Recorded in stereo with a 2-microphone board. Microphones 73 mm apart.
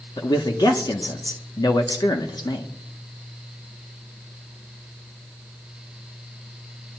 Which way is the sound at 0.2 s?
70° left (ahead or behind).